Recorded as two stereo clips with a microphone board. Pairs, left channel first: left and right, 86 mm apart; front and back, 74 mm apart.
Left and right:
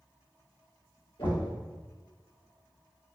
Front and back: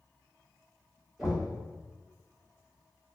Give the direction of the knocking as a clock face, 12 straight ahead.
9 o'clock.